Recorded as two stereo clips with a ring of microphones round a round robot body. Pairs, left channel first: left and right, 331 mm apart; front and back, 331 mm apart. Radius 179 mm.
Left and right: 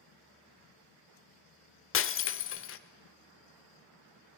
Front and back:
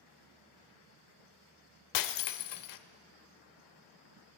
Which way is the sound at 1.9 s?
35° left.